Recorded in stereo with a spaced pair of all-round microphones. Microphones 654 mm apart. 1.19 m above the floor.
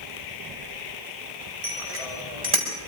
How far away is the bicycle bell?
About 4.5 m.